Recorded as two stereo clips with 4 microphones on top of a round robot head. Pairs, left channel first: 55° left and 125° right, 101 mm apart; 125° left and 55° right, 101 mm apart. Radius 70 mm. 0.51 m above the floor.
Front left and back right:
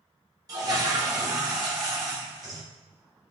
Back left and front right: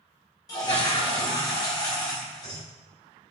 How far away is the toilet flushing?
About 2.0 m.